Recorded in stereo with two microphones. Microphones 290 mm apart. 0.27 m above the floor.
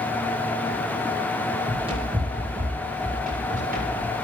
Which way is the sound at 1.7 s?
15° right (ahead or behind).